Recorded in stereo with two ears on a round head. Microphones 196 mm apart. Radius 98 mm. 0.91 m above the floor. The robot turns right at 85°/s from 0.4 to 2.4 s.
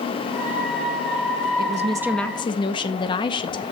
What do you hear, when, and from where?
1.6 s a woman speaking: 45° right, 0.7 m; by 3.6 s 20° left, 0.7 m